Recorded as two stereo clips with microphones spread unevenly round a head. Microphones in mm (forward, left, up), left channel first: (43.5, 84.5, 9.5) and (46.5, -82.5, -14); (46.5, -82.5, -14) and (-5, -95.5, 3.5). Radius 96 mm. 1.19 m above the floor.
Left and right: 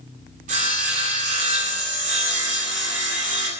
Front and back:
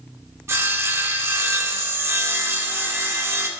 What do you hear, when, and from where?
0.5 s sawing: 145° right, 2 m